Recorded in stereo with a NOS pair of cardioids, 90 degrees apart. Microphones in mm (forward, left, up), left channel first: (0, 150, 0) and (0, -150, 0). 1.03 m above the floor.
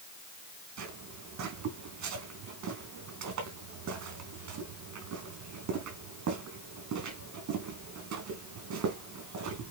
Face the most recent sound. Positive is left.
turn(degrees=-70)